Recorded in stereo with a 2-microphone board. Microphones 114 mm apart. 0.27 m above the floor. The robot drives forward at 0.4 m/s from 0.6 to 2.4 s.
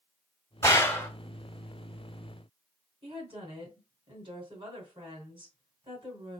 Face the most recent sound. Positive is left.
turn(degrees=-50)  # may be behind; listen again after turning